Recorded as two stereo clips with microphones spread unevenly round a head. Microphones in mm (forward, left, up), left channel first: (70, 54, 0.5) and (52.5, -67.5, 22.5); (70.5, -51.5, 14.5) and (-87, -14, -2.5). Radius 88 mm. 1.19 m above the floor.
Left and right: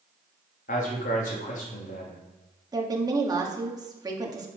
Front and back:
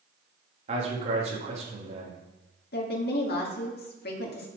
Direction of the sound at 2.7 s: 40° right.